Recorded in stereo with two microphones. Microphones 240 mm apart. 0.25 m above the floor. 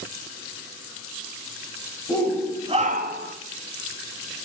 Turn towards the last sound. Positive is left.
turn(degrees=-50)  # may be behind; listen again after turning